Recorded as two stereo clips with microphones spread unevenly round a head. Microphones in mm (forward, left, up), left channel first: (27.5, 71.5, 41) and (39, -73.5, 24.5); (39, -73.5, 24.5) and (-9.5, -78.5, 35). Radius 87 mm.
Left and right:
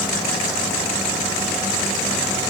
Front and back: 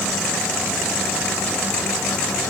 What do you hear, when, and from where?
Only background noise.